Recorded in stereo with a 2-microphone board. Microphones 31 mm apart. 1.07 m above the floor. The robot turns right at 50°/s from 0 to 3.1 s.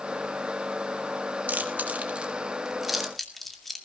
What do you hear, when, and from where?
1.5 s chewing: 75° right (ahead or behind), 2 m; by 3.9 s 5° left (ahead or behind), 2 m